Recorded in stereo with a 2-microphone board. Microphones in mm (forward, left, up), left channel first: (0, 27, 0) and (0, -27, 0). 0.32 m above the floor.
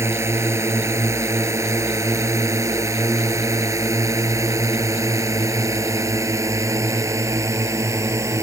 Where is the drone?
60° right (ahead or behind); by 8.4 s 70° right (ahead or behind).